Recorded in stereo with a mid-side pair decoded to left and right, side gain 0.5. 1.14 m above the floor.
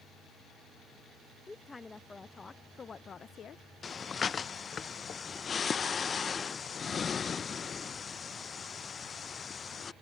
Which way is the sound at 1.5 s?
20° left.